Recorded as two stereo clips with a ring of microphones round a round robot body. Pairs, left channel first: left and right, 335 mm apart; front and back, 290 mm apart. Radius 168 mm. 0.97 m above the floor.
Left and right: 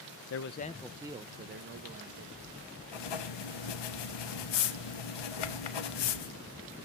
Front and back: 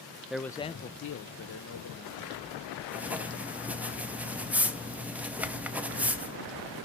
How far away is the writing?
About 1.1 m.